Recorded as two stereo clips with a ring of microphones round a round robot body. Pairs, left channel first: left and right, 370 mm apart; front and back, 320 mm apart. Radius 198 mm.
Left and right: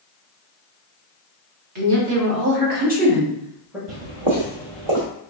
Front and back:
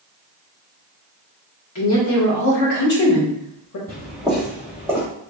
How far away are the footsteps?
About 1.3 m.